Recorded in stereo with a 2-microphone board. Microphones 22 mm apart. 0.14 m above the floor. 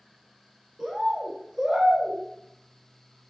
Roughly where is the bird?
Right.